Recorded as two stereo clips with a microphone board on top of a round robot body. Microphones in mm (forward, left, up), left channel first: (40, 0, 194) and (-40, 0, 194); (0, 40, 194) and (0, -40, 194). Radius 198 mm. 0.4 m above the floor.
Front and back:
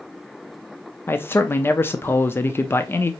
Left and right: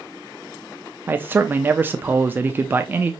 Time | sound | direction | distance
1.1 | a man speaking | 40° right | 0.8 m